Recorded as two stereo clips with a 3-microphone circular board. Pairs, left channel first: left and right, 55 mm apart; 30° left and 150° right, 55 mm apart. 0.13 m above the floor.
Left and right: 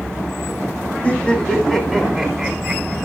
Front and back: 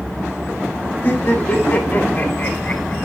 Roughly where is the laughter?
Ahead left.